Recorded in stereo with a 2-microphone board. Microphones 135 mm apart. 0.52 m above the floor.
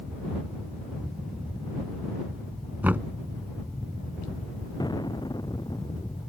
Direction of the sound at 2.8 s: 15° right (ahead or behind).